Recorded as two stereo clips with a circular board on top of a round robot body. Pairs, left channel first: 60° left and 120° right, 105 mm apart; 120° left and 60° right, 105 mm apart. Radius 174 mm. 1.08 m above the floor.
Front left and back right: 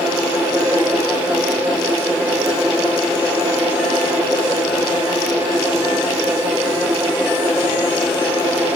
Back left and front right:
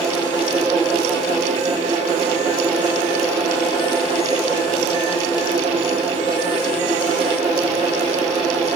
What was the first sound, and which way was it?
Only background noise.